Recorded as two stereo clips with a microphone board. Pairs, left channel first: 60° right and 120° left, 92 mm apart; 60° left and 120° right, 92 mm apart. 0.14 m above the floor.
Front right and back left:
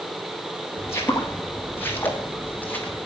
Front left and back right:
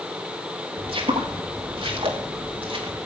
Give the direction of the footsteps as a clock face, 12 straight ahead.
4 o'clock.